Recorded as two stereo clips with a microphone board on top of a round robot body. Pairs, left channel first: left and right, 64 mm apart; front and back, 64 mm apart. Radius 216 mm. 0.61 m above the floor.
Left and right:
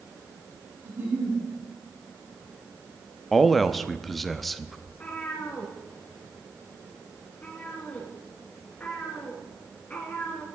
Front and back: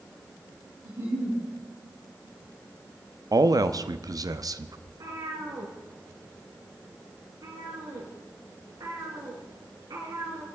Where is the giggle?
140° right, 4.5 m.